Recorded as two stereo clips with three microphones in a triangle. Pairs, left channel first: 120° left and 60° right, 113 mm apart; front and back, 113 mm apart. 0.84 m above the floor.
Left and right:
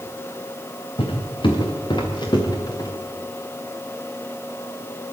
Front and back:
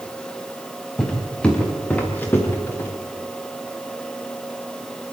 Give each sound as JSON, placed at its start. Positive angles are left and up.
{"t": 1.0, "sound": "footsteps", "azimuth_deg": 85, "distance_m": 5.0}